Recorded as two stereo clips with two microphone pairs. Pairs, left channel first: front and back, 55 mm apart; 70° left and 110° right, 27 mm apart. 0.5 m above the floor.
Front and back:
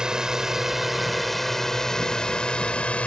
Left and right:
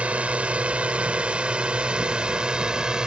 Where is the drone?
105° right; by 3.1 s 60° right.